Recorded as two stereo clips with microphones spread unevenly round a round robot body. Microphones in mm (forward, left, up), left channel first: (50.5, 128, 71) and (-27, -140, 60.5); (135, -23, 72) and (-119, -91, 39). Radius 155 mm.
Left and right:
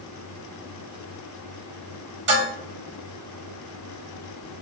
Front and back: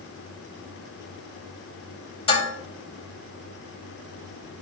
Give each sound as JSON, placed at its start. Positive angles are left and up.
{"t": 2.3, "sound": "dishes clattering", "azimuth_deg": -55, "distance_m": 3.5}